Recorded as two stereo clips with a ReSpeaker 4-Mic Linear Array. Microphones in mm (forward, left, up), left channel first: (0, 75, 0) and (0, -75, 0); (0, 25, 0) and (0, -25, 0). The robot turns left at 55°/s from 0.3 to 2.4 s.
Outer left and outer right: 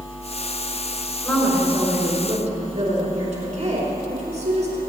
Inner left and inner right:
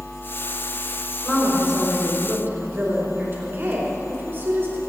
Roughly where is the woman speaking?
Ahead.